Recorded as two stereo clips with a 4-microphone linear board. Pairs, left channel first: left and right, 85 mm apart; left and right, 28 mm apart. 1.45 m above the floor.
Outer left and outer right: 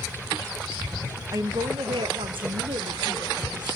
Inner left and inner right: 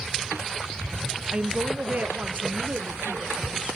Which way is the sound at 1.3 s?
40° right (ahead or behind).